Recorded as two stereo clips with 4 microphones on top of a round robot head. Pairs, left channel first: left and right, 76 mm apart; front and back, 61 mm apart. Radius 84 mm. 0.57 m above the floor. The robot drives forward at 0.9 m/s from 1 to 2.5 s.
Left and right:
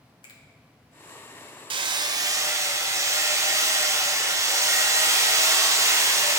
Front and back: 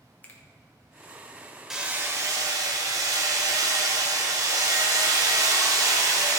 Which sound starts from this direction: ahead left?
A finger snap, at 0.2 s.